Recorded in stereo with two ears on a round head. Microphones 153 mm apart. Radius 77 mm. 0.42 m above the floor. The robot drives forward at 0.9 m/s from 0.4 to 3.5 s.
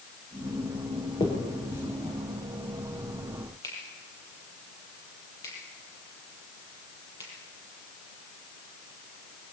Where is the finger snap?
25° left (ahead or behind), 6.5 m; by 7.3 s 20° left (ahead or behind), 8.5 m.